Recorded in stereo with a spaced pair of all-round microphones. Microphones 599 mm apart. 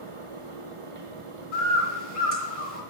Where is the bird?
60° right (ahead or behind), 2.0 m.